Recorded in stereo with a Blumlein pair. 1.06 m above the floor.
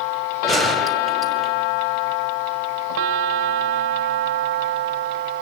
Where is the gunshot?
Straight ahead, 5.5 m.